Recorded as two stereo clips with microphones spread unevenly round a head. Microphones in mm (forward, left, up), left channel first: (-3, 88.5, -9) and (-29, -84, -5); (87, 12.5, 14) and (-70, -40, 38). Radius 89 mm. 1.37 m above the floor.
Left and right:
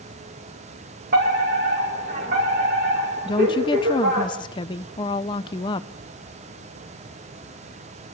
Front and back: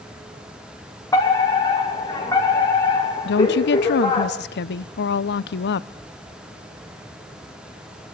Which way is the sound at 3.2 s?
15° left.